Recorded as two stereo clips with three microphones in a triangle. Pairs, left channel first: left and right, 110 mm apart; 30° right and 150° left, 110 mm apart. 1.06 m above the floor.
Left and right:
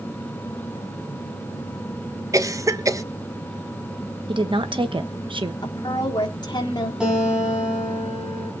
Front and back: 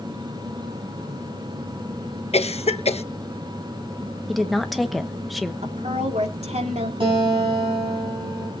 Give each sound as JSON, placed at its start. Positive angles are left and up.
{"t": 2.3, "sound": "a cough", "azimuth_deg": -30, "distance_m": 0.9}
{"t": 4.3, "sound": "a woman speaking", "azimuth_deg": -120, "distance_m": 1.1}
{"t": 5.6, "sound": "a woman speaking", "azimuth_deg": 135, "distance_m": 2.5}
{"t": 7.0, "sound": "a guitar", "azimuth_deg": -175, "distance_m": 5.5}